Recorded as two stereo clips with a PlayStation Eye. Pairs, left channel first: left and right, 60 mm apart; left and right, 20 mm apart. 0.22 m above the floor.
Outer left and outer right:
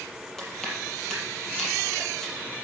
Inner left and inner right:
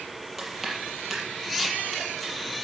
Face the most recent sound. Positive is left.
turn(degrees=5)  # may be behind; listen again after turning